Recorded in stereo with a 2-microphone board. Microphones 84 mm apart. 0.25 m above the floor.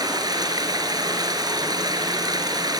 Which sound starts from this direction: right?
Running water, at 0.0 s.